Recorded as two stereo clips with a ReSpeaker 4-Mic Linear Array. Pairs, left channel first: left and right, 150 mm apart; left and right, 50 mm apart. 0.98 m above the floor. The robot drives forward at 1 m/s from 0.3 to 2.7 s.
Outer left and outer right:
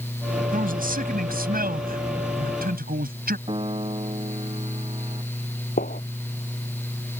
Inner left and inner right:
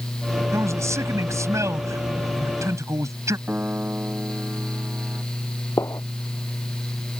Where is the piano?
35° right (ahead or behind).